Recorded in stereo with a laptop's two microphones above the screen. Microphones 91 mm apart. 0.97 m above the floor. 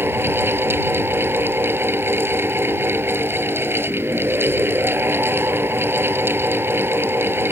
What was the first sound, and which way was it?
A fan, 25° right (ahead or behind).